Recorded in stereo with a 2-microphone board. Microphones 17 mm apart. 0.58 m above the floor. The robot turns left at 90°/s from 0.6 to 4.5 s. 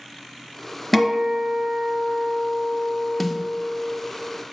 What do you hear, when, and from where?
0.9 s a guitar: 5° right, 1.2 m; by 4.0 s 80° left, 1.2 m
3.2 s a snare drum: centre (ahead or behind), 0.7 m; by 3.4 s 10° right (ahead or behind), 0.7 m